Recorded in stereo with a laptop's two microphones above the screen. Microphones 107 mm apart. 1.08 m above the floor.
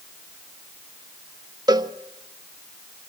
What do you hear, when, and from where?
1.7 s a cowbell: 35° right (ahead or behind), 1.1 m